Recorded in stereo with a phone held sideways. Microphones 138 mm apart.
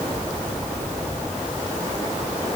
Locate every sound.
Only background noise.